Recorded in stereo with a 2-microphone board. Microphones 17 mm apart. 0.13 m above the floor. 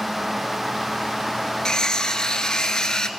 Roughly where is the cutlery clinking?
Left.